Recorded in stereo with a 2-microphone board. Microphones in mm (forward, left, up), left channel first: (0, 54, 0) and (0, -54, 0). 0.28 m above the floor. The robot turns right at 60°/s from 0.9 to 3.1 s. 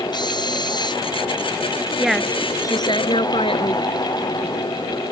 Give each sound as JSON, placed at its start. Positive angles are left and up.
{"t": 0.1, "sound": "a drill", "side_deg": 40}
{"t": 2.0, "sound": "a woman speaking", "azimuth_deg": -5}